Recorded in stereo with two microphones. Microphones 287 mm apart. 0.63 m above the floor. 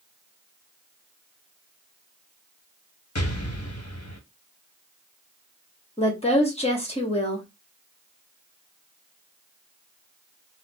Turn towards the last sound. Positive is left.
turn(degrees=20)  # may be behind; listen again after turning